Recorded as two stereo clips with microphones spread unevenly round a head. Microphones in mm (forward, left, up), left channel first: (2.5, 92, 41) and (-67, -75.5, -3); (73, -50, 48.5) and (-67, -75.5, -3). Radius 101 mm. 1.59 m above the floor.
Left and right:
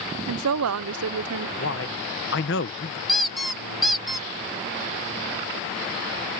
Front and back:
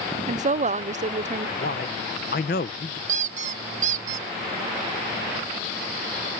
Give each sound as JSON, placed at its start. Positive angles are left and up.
{"t": 0.3, "sound": "a woman speaking", "azimuth_deg": -120}
{"t": 1.6, "sound": "a man speaking", "azimuth_deg": 40}
{"t": 3.1, "sound": "a squeak", "azimuth_deg": 135}